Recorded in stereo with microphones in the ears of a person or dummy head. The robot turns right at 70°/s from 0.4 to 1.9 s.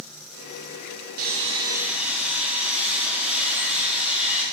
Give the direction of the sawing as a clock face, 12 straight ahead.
2 o'clock.